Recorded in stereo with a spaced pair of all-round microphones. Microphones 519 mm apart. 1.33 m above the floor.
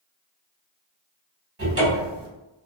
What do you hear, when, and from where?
1.6 s a cupboard door: 25° right (ahead or behind), 0.9 m